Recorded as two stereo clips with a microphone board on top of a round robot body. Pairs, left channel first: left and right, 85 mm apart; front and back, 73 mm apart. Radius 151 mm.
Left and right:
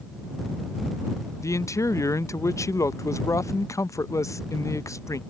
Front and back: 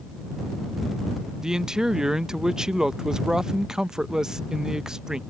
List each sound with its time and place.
1.4 s a man speaking: 105° left